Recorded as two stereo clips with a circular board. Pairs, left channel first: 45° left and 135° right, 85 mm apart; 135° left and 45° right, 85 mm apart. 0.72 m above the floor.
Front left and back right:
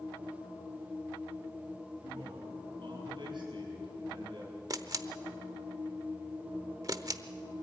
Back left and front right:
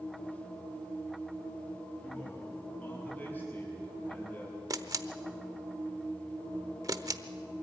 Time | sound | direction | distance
2.0 | a man speaking | 155° right | 6.5 m
4.7 | a camera shutter | 90° right | 0.8 m